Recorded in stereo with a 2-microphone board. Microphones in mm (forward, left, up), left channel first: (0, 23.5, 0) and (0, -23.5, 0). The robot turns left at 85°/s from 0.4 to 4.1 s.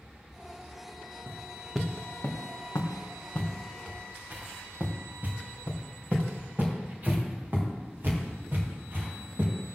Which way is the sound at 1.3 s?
50° right (ahead or behind).